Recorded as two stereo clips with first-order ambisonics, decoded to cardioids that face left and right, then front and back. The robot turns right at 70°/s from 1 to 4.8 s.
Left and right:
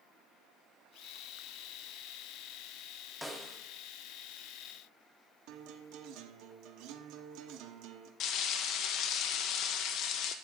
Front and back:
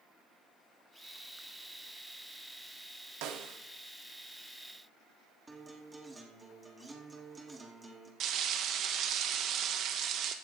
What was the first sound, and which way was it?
A snare drum, straight behind.